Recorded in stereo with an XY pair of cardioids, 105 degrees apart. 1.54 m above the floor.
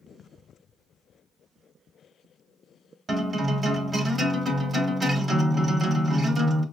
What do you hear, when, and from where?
3.1 s a guitar: 30° right, 1.3 m